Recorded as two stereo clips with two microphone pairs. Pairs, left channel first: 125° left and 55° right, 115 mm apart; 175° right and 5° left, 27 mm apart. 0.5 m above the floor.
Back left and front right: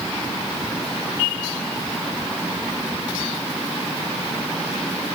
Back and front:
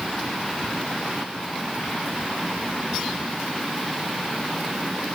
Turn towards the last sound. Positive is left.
No sound to turn to.